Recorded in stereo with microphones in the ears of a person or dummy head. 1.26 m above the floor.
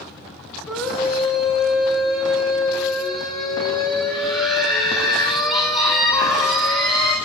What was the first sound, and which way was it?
A scream, 5° right (ahead or behind).